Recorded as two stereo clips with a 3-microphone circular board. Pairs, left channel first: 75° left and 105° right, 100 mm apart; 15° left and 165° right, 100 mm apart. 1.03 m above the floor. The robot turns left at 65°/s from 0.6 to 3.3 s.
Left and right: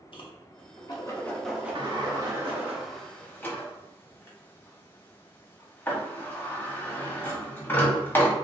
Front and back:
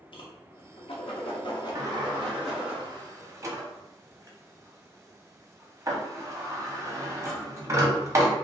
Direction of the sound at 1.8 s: 115° right.